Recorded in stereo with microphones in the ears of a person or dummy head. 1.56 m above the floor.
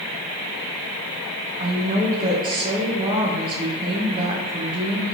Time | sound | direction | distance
1.6 | a woman speaking | 30° right (ahead or behind) | 1.0 m